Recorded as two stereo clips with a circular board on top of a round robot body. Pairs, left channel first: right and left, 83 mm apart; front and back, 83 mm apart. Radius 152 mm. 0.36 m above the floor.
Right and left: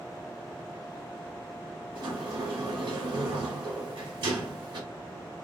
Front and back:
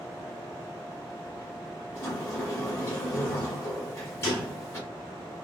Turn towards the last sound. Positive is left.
turn(degrees=60)